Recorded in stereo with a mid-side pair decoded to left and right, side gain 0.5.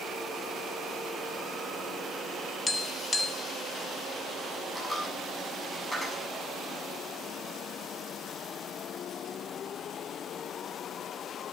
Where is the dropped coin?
10° left, 6.5 m.